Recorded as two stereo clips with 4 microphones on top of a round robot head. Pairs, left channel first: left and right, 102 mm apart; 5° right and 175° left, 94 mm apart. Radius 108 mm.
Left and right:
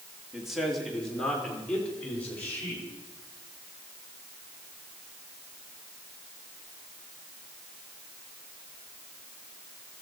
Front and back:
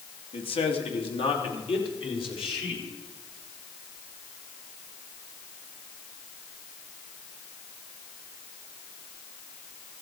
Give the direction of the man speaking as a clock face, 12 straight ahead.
12 o'clock.